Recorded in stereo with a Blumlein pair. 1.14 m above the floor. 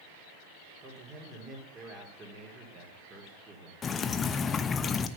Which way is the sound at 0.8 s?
20° right.